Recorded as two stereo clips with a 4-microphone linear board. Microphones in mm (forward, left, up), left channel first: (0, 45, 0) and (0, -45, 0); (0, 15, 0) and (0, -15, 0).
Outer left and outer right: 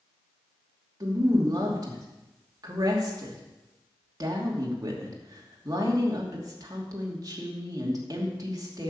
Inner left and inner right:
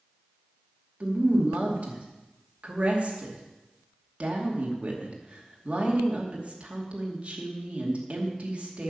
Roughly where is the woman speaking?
Right.